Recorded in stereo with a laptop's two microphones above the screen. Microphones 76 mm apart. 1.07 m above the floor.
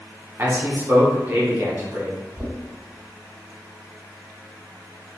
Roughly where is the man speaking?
Right.